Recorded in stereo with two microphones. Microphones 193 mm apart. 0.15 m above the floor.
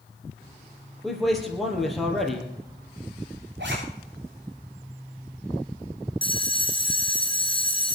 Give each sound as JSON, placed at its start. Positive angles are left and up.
{"t": 1.0, "sound": "a man speaking", "side_deg": 0, "distance_m": 4.0}
{"t": 3.6, "sound": "a zipper", "side_deg": -65, "distance_m": 6.0}
{"t": 6.2, "sound": "a bell", "side_deg": 25, "distance_m": 2.0}